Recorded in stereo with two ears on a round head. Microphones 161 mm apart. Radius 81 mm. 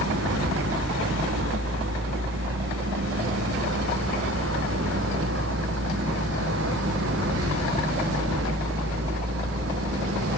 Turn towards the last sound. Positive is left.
turn(degrees=-80)